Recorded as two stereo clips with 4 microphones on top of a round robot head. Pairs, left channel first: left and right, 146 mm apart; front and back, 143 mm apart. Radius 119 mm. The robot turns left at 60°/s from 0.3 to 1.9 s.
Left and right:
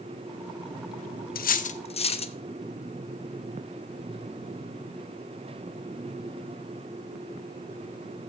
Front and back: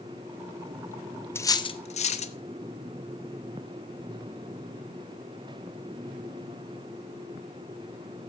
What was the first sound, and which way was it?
Cutlery clinking, 75° left.